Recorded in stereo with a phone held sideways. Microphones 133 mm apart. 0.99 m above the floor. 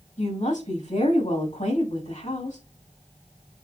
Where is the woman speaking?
65° left (ahead or behind), 5.5 m.